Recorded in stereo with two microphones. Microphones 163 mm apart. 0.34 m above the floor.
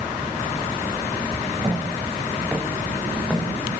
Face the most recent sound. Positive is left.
turn(degrees=15)  # may be behind; listen again after turning